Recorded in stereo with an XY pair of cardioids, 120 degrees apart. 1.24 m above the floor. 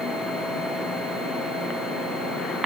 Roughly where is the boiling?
No boiling in this recording.